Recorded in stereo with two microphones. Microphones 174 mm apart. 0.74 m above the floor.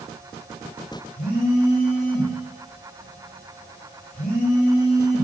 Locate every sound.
1.2 s a phone buzzing: 50° left (ahead or behind), 2.5 m